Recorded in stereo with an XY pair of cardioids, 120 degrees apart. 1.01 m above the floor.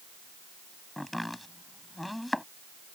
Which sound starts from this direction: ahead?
Chopping, at 1.0 s.